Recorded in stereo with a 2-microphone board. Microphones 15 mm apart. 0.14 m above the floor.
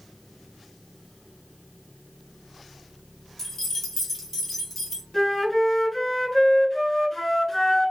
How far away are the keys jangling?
About 1.0 m.